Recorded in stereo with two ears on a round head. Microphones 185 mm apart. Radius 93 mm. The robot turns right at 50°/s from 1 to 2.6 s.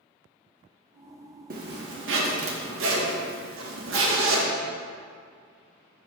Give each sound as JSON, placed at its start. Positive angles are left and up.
{"t": 1.5, "sound": "a zipper", "azimuth_deg": -130, "distance_m": 1.1}